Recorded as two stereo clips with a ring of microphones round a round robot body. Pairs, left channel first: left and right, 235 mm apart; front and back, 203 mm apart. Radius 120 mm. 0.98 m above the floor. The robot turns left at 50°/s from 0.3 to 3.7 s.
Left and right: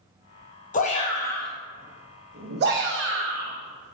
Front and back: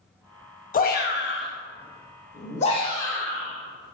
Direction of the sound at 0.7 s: 40° left.